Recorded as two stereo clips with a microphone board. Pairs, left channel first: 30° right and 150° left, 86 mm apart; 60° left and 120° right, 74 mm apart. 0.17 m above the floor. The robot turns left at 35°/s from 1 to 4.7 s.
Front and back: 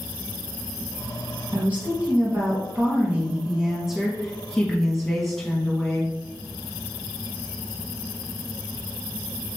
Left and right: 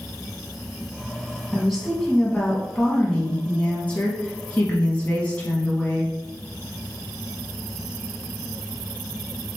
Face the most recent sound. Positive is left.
turn(degrees=50)